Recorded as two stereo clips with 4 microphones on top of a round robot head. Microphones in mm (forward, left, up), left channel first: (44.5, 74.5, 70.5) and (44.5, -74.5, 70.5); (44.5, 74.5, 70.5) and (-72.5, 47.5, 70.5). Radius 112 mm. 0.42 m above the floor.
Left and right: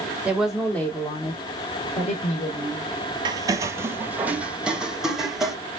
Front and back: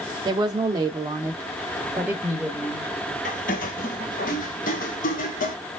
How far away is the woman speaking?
About 1.1 m.